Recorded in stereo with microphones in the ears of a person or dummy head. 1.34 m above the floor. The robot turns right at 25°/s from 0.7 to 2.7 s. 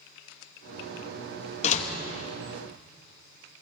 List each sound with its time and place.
1.6 s a door slam: 40° left (ahead or behind), 1.4 m; by 1.9 s 45° left (ahead or behind), 1.4 m